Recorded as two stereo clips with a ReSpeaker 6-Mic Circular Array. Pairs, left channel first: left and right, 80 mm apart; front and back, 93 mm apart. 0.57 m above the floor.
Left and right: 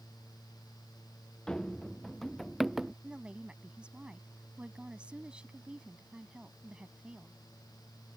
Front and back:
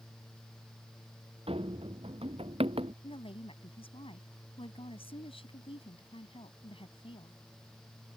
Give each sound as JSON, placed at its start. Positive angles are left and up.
{"t": 1.5, "sound": "running footsteps", "azimuth_deg": 170}
{"t": 3.0, "sound": "a woman speaking", "azimuth_deg": -15}